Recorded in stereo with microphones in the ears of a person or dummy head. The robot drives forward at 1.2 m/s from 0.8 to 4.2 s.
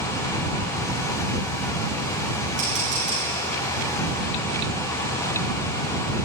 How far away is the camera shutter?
About 6.5 m.